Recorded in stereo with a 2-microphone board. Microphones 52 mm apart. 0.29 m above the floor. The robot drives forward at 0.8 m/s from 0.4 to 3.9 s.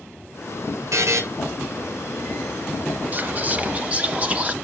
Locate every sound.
0.9 s a buzzer: 65° right (ahead or behind), 2.5 m; by 1.2 s 70° right (ahead or behind), 2.5 m
3.1 s whispering: 35° right (ahead or behind), 1.2 m; by 4.5 s 25° right (ahead or behind), 1.5 m